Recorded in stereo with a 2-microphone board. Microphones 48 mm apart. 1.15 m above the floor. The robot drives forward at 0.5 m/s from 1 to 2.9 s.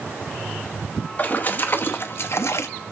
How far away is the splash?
About 1.2 m.